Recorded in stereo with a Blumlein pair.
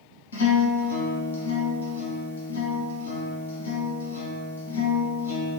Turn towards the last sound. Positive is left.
turn(degrees=70)